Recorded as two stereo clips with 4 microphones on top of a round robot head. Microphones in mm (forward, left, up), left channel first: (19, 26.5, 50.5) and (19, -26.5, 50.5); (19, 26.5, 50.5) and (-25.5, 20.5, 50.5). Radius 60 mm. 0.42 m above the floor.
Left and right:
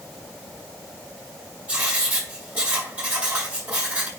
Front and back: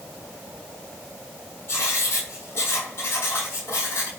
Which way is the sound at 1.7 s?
25° right.